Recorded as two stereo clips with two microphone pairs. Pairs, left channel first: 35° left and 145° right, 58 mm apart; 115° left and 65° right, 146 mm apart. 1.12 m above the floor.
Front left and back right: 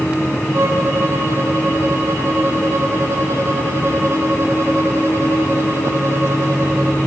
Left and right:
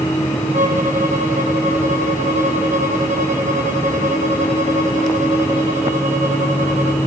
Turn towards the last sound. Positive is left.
turn(degrees=-100)